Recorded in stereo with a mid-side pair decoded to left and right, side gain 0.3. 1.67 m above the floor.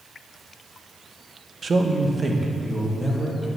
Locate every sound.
1.6 s a man speaking: 50° right, 1.1 m; by 3.5 s 15° right, 3.5 m